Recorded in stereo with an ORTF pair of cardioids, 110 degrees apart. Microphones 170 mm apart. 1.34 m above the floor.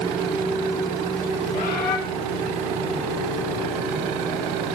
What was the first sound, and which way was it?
A bird, 55° left.